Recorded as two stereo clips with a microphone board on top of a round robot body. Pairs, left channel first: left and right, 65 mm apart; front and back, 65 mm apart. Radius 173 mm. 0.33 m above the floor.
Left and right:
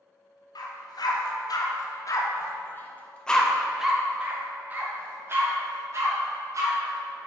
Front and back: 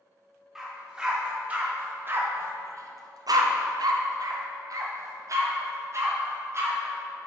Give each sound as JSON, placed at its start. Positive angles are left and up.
{"t": 0.6, "sound": "a dog barking", "azimuth_deg": 100, "distance_m": 1.6}